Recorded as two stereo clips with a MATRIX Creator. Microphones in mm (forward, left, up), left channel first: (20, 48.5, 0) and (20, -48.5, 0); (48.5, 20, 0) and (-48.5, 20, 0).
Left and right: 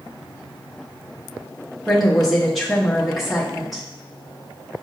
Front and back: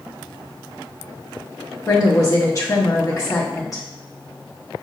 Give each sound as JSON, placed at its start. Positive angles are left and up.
{"t": 1.9, "sound": "a woman speaking", "azimuth_deg": 0, "distance_m": 0.9}